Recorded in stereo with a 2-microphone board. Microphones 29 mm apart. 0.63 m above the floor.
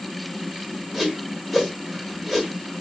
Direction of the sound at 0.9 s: 5° right (ahead or behind).